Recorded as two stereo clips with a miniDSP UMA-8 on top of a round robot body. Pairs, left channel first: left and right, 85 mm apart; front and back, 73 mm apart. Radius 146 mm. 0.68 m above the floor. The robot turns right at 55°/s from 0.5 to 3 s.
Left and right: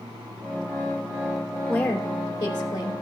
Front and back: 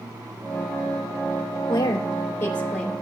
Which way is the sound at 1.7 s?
15° left.